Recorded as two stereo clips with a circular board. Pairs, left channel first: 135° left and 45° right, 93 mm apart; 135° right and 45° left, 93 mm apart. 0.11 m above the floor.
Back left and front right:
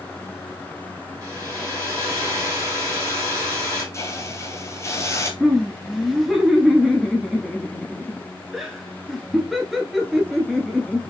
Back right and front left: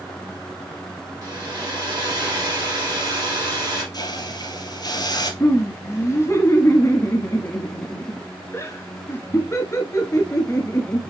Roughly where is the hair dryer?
Ahead.